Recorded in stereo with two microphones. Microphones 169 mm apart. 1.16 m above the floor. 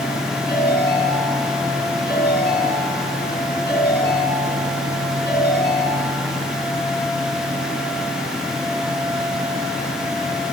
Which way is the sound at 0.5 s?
80° left.